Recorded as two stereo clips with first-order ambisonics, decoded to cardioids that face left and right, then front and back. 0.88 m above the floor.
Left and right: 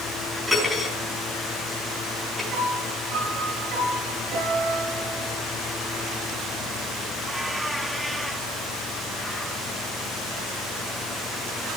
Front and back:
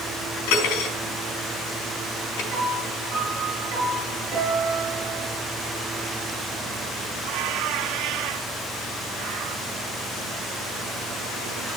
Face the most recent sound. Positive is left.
turn(degrees=-130)